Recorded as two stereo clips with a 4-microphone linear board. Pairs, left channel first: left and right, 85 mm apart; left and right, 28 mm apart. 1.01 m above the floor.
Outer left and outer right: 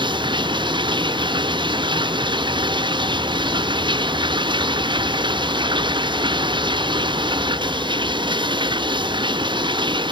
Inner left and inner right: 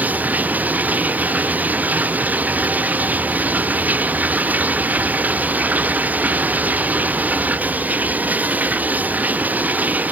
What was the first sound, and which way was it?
Running water, 70° right (ahead or behind).